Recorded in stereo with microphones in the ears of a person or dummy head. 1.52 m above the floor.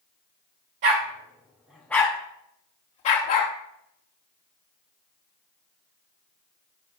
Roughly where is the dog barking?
Right.